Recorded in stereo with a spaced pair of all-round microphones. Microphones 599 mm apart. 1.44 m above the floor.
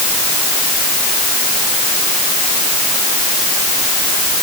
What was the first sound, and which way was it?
Only background noise.